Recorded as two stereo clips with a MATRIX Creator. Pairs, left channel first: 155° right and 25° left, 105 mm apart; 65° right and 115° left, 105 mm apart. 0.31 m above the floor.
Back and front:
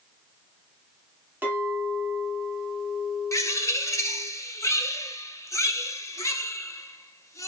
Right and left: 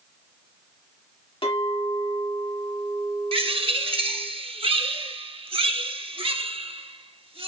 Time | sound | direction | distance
1.4 | a clink | 45° right | 1.6 m
3.3 | a bird | 140° left | 0.7 m